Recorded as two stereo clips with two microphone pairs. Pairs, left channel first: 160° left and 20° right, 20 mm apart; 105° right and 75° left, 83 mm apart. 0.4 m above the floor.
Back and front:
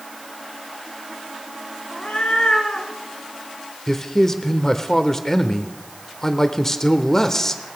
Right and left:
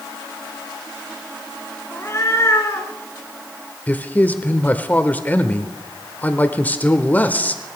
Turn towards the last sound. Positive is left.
turn(degrees=-155)